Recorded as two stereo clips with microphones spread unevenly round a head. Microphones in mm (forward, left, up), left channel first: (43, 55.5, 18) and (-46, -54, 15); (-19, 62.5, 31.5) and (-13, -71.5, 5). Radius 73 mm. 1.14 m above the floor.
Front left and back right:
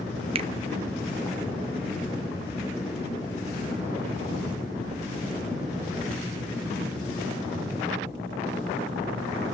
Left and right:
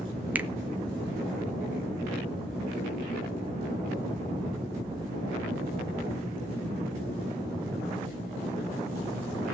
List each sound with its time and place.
0.3 s a finger snap: 145° right, 0.6 m